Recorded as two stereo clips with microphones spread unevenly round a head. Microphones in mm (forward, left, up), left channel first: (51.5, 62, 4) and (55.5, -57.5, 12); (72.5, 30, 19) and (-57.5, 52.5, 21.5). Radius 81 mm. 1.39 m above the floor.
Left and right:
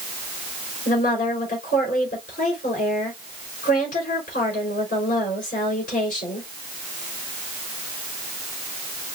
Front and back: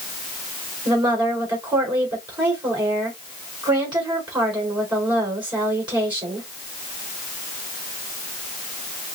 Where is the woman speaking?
115° left, 4 m.